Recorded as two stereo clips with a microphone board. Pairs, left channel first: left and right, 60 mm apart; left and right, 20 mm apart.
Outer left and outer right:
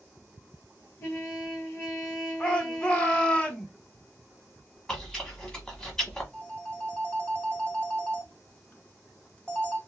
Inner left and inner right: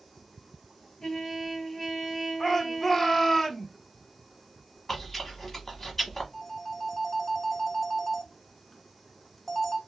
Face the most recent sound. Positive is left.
turn(degrees=20)  # may be behind; listen again after turning